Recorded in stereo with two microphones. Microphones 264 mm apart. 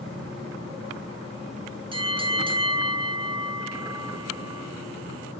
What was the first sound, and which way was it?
A bell, 20° right (ahead or behind).